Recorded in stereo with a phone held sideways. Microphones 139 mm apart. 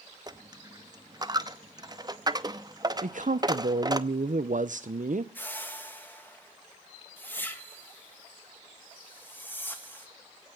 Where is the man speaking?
70° right (ahead or behind), 0.6 m.